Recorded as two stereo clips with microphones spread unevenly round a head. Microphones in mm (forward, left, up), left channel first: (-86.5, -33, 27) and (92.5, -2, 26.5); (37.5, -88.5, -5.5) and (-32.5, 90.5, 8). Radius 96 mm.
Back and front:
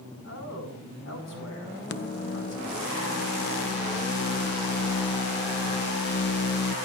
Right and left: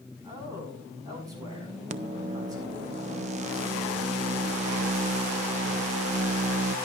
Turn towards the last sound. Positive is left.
turn(degrees=160)